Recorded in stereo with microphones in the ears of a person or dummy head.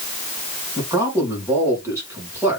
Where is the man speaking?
15° right (ahead or behind), 1.8 m.